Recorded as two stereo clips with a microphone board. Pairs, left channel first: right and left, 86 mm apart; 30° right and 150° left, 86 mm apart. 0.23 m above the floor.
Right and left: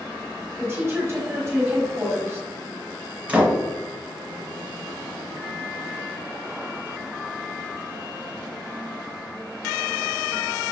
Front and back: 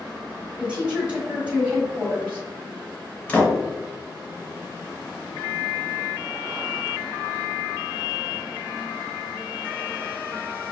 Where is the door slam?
30° left, 1.2 m.